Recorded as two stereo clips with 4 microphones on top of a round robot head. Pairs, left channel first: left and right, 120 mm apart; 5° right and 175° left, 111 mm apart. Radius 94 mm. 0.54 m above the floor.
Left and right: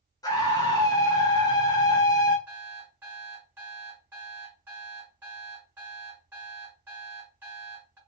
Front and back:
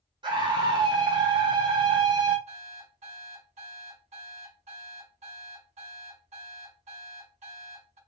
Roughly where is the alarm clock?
Behind.